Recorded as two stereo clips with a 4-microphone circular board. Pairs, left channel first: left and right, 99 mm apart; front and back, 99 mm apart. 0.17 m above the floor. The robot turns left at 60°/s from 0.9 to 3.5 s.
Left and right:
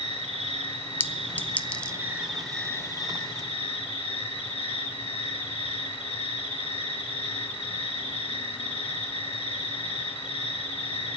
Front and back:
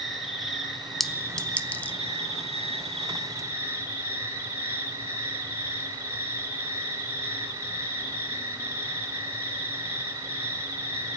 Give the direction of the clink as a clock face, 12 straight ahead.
9 o'clock.